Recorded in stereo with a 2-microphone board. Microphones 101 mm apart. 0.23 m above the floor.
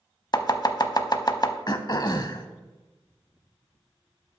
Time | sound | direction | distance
0.3 | chopping | 45° left (ahead or behind) | 0.5 m
1.7 | throat clearing | 45° left (ahead or behind) | 0.5 m